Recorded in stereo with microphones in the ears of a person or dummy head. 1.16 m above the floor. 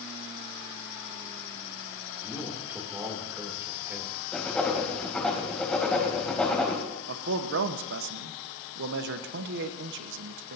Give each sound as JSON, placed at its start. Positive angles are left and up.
{"t": 2.2, "sound": "a man speaking", "side_deg": -10, "distance_m": 3.0}
{"t": 4.3, "sound": "writing", "side_deg": 5, "distance_m": 3.0}
{"t": 7.1, "sound": "a man speaking", "side_deg": -60, "distance_m": 1.2}